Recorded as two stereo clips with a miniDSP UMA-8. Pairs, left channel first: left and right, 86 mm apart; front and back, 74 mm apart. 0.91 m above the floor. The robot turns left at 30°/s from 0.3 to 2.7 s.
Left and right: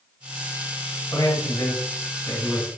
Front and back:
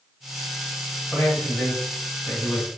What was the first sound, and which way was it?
A man speaking, 95° left.